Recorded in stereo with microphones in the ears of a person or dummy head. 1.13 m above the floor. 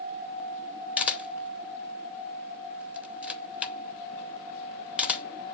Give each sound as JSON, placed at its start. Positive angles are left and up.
{"t": 1.0, "sound": "a camera shutter", "side_deg": 5, "distance_m": 0.6}